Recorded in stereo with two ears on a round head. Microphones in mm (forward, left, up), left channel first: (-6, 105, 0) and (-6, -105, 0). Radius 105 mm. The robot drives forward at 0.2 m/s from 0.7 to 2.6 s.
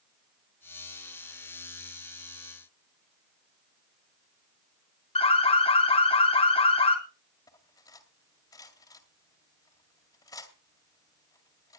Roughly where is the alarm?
Left.